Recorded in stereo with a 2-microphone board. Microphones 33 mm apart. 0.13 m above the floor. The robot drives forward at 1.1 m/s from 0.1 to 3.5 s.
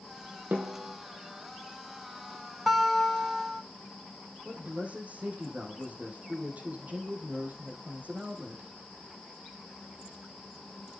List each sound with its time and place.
0.5 s a snare drum: 65° right (ahead or behind), 4 m; by 1.0 s 70° right (ahead or behind), 4 m
2.7 s a guitar: 5° right (ahead or behind), 3 m; by 3.6 s 10° right (ahead or behind), 1.9 m
4.5 s a man speaking: 45° right (ahead or behind), 5 m